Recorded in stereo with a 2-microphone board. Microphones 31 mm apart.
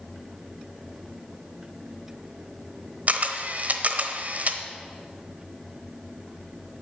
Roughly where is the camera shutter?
Right.